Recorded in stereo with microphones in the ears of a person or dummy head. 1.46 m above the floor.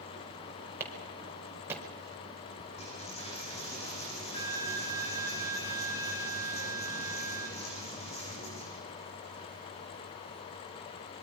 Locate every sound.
0.8 s a clap: 15° right (ahead or behind), 4.5 m
2.8 s a dropped coin: 30° left (ahead or behind), 4 m